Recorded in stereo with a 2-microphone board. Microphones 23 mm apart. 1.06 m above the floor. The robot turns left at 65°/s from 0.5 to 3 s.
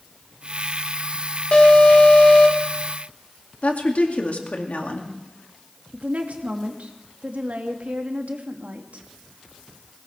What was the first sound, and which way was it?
An alarm, 125° left.